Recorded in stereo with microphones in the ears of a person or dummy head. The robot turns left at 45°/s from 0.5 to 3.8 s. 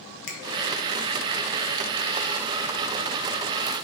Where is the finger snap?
65° left (ahead or behind), 0.6 m.